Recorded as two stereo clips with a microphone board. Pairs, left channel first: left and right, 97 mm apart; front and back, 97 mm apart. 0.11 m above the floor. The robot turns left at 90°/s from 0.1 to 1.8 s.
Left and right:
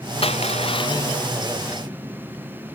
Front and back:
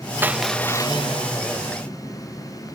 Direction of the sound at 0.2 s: 110° left.